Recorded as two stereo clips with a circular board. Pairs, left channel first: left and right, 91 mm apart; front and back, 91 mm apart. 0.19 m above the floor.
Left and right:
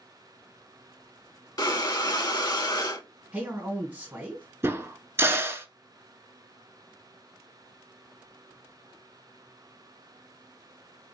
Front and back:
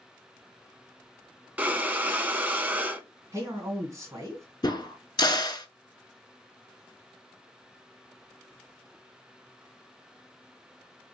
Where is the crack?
30° right, 0.6 m.